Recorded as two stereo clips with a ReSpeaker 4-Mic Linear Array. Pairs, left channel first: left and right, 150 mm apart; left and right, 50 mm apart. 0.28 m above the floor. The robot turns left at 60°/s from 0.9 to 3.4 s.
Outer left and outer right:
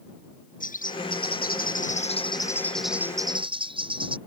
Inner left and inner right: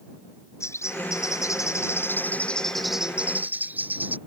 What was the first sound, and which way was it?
A bird, 115° left.